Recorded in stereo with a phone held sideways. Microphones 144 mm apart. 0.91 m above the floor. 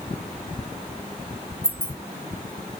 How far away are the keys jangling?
About 0.7 m.